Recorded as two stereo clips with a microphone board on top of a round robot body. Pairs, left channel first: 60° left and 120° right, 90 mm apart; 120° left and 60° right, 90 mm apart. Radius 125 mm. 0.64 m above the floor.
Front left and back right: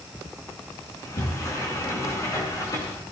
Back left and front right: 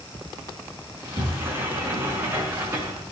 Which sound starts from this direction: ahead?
A sliding door, at 0.9 s.